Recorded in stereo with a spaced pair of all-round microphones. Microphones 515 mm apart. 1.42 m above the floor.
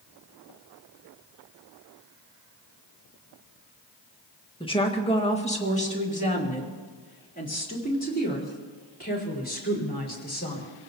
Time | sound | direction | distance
4.6 | a woman speaking | 10° left (ahead or behind) | 1.7 m